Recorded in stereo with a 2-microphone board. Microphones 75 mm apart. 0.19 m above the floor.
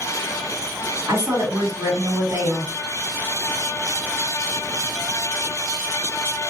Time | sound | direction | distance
1.1 | a woman speaking | 45° right (ahead or behind) | 2 m